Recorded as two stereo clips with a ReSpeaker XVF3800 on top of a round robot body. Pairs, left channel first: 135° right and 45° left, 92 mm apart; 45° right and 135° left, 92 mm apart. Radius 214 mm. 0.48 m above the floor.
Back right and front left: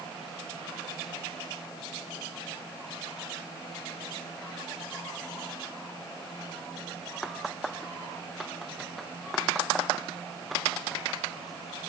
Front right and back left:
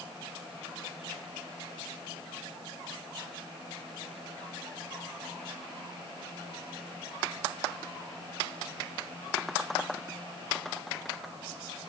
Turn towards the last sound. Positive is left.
No sound to turn to.